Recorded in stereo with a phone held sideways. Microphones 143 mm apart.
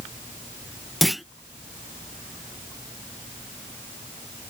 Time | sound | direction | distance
1.0 | a clunk | centre (ahead or behind) | ?